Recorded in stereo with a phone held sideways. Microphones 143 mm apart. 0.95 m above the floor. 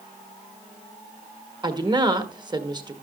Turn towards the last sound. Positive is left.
turn(degrees=-30)  # may be behind; listen again after turning